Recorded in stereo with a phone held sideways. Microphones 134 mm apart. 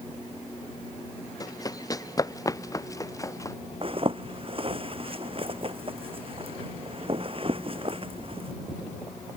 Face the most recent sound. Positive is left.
turn(degrees=-45)  # may be behind; listen again after turning